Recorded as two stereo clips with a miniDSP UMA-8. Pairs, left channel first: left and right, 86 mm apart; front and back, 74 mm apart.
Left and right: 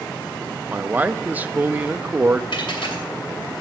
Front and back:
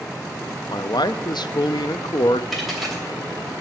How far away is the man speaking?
About 0.5 m.